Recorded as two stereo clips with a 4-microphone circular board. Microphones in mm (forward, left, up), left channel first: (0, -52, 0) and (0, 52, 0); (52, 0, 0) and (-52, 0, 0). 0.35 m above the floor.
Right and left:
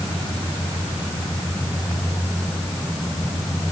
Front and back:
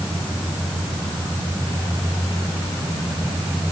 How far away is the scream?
No scream in this recording.